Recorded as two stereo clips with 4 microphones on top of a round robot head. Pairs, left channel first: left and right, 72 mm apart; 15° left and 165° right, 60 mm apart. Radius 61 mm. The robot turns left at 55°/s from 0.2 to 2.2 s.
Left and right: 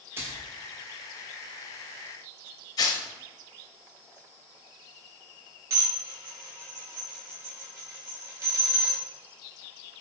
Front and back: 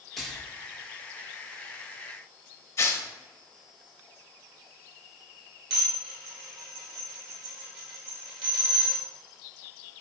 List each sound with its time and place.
0.2 s a splash: 75° right, 0.6 m; by 0.5 s 90° right, 0.6 m
2.8 s tearing paper: 55° left, 0.6 m
5.7 s dishes clattering: 150° right, 1.8 m